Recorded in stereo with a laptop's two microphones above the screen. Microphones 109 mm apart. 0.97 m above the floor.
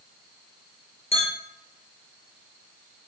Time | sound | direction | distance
1.1 | a clink | 70° left (ahead or behind) | 0.6 m